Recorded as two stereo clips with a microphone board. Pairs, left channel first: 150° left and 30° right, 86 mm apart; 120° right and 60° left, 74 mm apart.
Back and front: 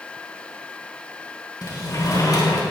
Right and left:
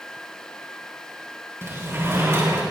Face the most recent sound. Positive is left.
turn(degrees=110)